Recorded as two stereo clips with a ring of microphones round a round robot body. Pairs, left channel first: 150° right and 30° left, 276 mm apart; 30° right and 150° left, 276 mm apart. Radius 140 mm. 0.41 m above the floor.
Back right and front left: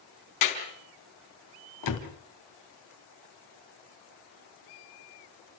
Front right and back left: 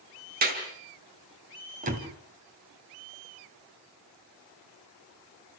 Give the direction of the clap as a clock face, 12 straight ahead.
5 o'clock.